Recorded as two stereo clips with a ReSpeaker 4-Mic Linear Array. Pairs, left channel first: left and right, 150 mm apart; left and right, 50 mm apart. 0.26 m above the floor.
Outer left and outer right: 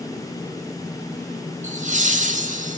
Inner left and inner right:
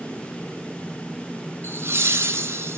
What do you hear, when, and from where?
1.6 s laughter: 55° right (ahead or behind), 3.5 m; by 2.8 s 65° right (ahead or behind), 3.5 m